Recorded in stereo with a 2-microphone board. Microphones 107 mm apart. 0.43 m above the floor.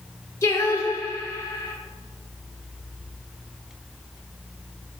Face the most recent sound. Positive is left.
turn(degrees=25)  # may be behind; listen again after turning